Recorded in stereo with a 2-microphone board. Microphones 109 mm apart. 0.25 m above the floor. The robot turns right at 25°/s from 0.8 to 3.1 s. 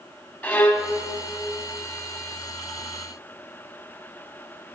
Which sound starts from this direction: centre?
A violin, at 0.4 s.